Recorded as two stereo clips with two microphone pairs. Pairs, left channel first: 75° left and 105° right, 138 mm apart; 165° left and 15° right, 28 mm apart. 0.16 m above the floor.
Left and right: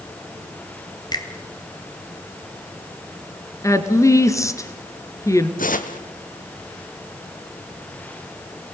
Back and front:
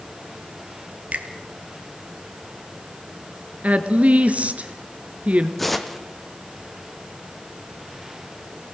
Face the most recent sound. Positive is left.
turn(degrees=80)